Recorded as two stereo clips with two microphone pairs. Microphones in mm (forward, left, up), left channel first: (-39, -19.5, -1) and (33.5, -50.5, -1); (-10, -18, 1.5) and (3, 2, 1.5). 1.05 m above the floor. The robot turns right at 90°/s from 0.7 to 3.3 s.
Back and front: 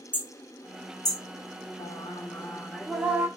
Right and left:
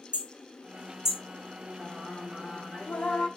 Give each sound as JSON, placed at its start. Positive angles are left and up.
{"t": 0.1, "sound": "hammering", "azimuth_deg": 85, "distance_m": 2.5}
{"t": 1.8, "sound": "singing", "azimuth_deg": 145, "distance_m": 1.4}